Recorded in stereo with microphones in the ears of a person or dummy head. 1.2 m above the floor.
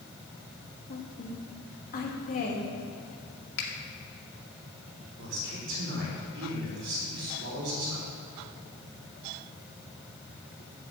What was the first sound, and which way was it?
A woman speaking, 45° left (ahead or behind).